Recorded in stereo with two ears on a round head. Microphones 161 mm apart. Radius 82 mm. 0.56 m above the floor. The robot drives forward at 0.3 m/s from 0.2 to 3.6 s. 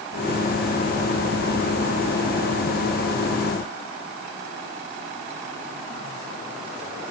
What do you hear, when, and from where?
Only background noise.